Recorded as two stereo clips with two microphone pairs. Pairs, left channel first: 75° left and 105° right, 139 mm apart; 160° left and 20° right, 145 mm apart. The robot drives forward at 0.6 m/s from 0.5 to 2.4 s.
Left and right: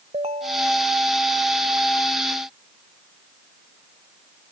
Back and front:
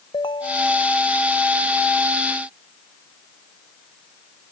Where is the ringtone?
140° right; by 0.9 s 145° right.